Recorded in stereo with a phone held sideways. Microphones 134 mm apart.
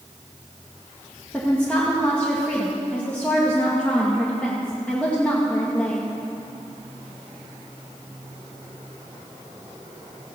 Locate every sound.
1.3 s a woman speaking: 10° left (ahead or behind), 1.9 m